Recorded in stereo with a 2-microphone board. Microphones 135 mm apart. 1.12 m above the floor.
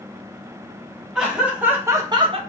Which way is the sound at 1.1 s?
5° right (ahead or behind).